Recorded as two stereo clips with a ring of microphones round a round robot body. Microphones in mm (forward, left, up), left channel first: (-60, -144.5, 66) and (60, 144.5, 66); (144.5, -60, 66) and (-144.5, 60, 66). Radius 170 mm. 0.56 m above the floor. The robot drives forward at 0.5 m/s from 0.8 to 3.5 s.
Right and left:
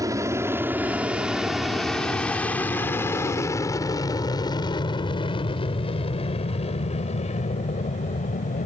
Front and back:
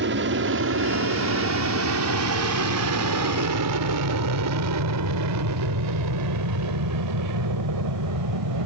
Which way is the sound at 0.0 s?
140° left.